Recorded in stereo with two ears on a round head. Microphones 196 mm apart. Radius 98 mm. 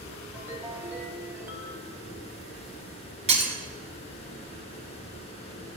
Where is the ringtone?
10° right (ahead or behind), 2.5 m.